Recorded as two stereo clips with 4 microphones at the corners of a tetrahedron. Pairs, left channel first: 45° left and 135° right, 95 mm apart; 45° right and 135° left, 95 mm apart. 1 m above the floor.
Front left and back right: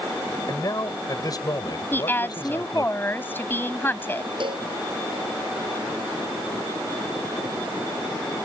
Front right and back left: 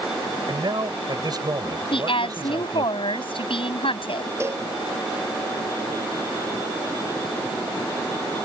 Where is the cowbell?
165° right.